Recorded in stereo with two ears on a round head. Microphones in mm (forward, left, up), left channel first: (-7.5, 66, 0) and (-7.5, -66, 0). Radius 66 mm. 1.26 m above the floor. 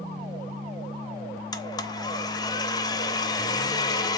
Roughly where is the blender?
Left.